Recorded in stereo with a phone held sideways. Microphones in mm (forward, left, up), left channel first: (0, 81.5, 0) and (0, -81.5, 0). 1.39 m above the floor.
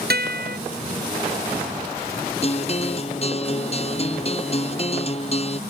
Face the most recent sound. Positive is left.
turn(degrees=40)  # may be behind; listen again after turning